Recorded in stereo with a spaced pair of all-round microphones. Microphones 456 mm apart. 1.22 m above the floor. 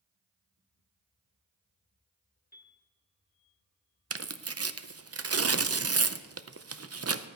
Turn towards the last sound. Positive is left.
turn(degrees=-35)  # may be behind; listen again after turning